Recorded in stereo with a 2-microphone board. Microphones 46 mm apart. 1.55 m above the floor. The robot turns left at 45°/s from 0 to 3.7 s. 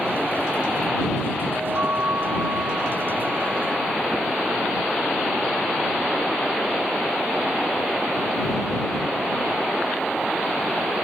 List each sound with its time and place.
1.5 s a chime: 45° right; by 4.0 s 145° right